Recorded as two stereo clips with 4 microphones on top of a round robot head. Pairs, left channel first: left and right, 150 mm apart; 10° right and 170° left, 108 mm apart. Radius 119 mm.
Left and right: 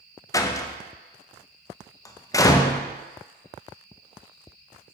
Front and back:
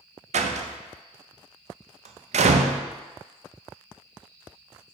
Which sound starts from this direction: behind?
A door slam, at 0.3 s.